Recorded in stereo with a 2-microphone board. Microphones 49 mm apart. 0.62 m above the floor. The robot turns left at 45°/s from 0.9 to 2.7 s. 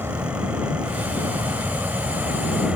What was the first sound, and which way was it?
An aircraft, 60° right (ahead or behind).